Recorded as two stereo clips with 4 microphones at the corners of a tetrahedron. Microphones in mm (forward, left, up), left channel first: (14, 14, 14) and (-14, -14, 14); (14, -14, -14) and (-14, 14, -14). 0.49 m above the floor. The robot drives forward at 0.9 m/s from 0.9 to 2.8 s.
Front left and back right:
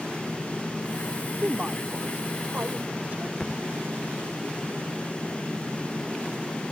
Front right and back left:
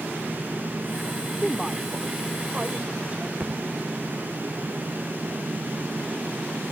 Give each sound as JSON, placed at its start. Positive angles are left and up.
{"t": 1.4, "sound": "a woman speaking", "azimuth_deg": -135}
{"t": 3.4, "sound": "a thud", "azimuth_deg": 120}